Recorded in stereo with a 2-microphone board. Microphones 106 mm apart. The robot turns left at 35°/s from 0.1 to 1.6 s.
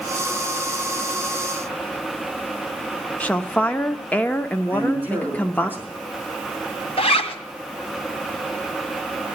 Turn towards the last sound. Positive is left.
turn(degrees=65)  # may be behind; listen again after turning